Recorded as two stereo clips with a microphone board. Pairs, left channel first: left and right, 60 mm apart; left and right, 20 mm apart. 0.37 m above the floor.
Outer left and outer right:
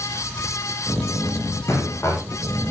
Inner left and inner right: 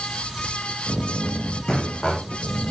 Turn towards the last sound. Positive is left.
turn(degrees=55)  # may be behind; listen again after turning